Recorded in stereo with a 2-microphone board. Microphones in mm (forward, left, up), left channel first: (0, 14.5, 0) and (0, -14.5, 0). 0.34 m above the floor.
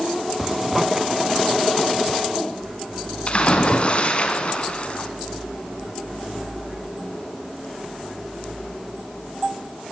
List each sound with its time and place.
0.4 s a zipper: 10° right (ahead or behind), 1.5 m
3.3 s a splash: 40° left (ahead or behind), 3.5 m